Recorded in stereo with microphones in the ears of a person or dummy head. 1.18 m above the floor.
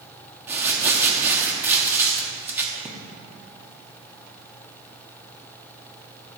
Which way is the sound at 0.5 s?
10° right (ahead or behind).